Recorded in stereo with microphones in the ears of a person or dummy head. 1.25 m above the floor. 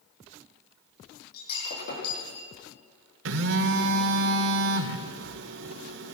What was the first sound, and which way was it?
Breaking glass, 60° left (ahead or behind).